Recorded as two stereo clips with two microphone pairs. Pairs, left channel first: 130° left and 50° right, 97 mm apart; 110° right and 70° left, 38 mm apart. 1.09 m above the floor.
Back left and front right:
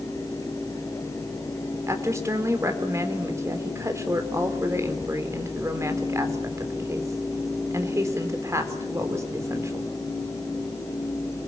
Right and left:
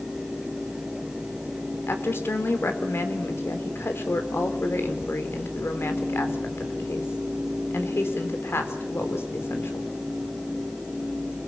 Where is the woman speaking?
110° right, 4 m.